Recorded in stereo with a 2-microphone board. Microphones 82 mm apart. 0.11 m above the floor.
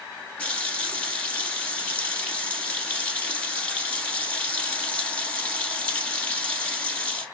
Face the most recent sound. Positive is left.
turn(degrees=20)  # may be behind; listen again after turning